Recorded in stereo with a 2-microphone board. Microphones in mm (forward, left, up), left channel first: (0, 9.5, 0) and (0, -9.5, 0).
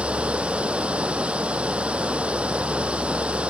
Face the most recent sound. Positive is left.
turn(degrees=-90)